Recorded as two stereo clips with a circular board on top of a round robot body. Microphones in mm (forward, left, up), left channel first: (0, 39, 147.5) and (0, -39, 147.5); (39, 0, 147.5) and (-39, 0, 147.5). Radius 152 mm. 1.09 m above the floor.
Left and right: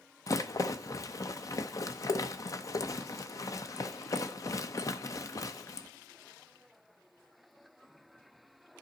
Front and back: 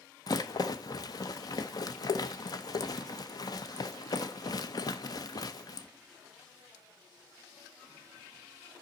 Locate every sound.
0.3 s a rattle: 40° left, 0.7 m